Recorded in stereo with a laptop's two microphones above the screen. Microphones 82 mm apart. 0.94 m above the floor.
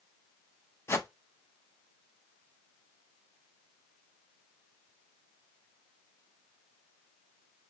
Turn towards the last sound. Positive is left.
turn(degrees=30)  # may be behind; listen again after turning